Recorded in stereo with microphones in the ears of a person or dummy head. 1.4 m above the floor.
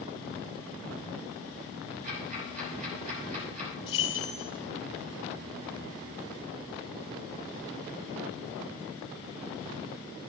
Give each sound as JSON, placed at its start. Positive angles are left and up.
{"t": 2.0, "sound": "ticking", "side_deg": -50, "distance_m": 4.0}
{"t": 3.9, "sound": "keys jangling", "side_deg": 30, "distance_m": 2.0}